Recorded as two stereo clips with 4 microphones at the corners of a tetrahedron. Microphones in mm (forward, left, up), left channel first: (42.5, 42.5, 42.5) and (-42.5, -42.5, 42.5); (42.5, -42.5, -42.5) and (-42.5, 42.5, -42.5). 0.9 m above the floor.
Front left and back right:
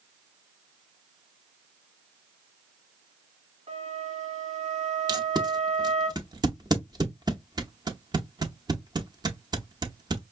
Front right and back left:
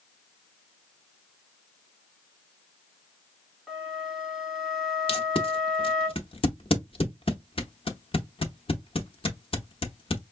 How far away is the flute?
About 1.7 m.